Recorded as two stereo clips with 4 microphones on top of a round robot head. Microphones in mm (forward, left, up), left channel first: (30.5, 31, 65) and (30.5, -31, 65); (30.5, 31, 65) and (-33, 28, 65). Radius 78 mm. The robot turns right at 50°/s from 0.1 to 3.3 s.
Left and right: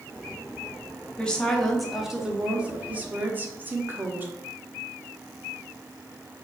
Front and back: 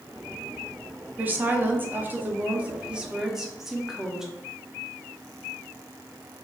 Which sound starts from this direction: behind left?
A woman speaking, at 1.2 s.